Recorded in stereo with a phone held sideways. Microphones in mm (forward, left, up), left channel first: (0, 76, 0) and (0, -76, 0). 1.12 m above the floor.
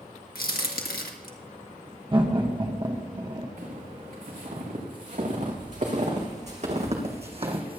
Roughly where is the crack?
Left.